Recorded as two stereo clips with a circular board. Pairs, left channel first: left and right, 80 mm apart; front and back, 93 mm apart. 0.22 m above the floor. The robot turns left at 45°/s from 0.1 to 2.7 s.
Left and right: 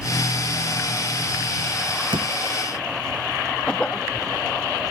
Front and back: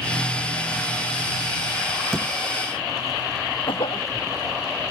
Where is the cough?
15° left.